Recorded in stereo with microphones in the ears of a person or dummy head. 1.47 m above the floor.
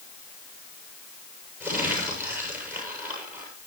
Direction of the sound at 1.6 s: 10° right (ahead or behind).